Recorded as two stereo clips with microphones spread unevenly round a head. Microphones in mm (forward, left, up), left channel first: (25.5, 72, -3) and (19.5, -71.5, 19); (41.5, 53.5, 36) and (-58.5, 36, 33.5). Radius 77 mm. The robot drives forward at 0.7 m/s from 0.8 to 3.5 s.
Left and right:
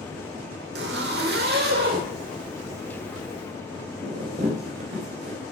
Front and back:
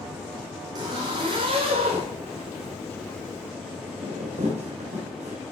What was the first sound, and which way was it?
A zipper, 110° right.